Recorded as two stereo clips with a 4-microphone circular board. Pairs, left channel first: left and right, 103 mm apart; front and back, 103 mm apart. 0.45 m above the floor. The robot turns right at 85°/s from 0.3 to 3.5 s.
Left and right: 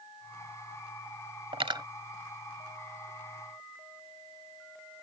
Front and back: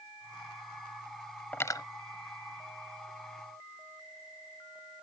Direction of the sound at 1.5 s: 70° right.